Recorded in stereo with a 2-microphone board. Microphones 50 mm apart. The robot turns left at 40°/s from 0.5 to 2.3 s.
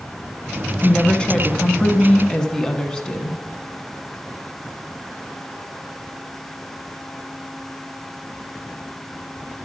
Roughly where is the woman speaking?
Centre.